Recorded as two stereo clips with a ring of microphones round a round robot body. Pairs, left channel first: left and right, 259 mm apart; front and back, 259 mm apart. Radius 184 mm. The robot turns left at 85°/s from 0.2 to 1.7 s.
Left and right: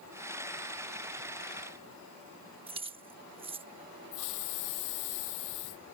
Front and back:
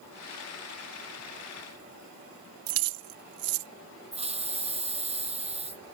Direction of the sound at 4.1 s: 115° left.